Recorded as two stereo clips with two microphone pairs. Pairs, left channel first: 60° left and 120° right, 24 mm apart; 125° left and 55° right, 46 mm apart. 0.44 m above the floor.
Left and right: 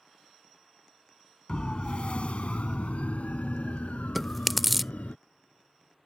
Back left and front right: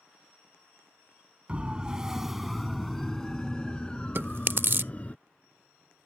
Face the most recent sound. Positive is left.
turn(degrees=-30)